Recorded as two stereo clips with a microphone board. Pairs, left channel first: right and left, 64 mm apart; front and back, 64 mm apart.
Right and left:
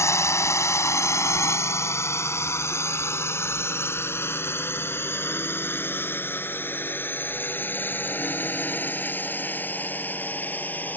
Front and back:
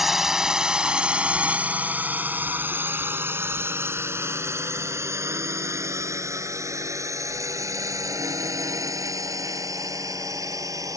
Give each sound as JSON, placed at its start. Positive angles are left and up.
{"t": 0.0, "sound": "a drone", "azimuth_deg": -95}